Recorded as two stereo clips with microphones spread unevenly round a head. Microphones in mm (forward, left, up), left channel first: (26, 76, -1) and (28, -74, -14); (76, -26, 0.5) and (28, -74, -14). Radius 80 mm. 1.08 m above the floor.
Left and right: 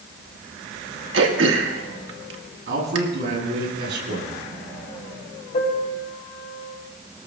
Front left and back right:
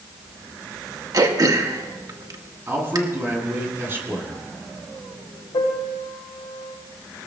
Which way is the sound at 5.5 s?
50° left.